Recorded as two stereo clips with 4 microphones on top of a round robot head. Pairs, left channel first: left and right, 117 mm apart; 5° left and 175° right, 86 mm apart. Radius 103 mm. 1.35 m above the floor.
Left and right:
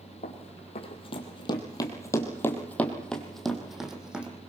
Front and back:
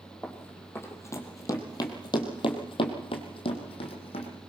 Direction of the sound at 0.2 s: 70° left.